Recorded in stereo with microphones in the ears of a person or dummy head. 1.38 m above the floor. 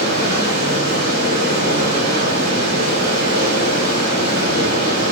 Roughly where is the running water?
Left.